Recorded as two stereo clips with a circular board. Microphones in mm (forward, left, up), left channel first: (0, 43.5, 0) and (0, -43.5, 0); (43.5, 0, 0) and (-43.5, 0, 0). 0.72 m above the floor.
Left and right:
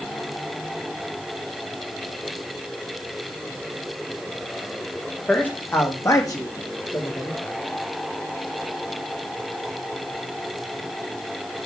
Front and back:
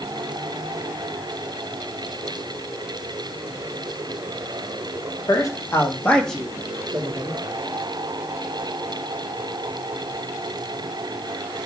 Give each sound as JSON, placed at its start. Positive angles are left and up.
{"t": 5.3, "sound": "a man speaking", "azimuth_deg": 20, "distance_m": 1.6}